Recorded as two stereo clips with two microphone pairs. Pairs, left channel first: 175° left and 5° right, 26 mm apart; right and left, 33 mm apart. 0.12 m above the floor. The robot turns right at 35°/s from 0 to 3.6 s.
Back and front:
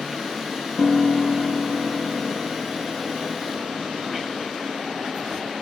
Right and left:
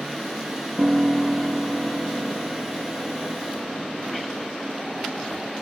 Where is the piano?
170° left, 0.9 m; by 4.5 s 95° right, 0.9 m.